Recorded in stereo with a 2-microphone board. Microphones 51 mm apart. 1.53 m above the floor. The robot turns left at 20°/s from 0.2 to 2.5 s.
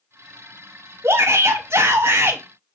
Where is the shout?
60° right (ahead or behind), 0.7 m; by 2.4 s 45° right (ahead or behind), 0.7 m.